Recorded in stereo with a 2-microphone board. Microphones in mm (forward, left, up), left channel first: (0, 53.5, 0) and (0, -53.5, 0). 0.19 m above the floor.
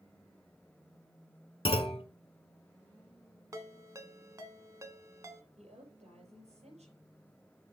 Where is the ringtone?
30° right (ahead or behind), 1.0 m.